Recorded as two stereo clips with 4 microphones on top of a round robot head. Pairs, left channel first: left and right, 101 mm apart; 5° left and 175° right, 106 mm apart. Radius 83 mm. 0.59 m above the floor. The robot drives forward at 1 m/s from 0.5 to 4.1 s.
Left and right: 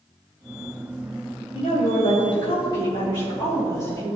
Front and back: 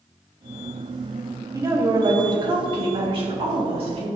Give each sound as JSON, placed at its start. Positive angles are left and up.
{"t": 1.5, "sound": "a woman speaking", "azimuth_deg": 125, "distance_m": 2.0}